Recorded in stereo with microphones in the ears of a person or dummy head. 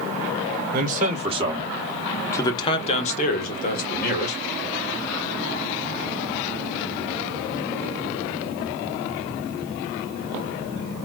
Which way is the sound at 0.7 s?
50° right (ahead or behind).